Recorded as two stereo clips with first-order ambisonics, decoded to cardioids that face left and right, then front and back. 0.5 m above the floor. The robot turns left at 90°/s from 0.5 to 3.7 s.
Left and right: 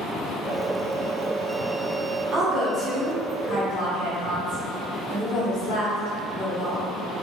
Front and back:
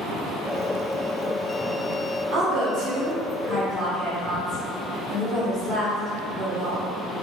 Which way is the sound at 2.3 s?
140° right.